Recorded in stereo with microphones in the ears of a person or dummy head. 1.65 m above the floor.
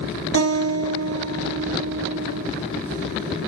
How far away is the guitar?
About 0.5 m.